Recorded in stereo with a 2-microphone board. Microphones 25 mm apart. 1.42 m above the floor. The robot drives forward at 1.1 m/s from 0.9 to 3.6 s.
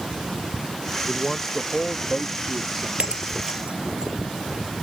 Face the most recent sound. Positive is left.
turn(degrees=-60)  # may be behind; listen again after turning